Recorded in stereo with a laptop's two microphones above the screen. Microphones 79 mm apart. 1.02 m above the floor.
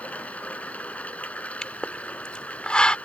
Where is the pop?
10° left (ahead or behind).